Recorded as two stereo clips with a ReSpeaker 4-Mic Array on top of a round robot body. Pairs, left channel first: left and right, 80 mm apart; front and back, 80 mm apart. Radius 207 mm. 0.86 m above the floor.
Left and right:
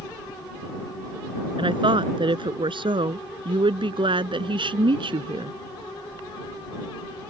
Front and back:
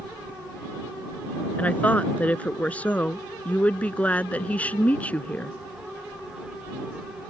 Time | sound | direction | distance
1.6 | a woman speaking | 75° right | ?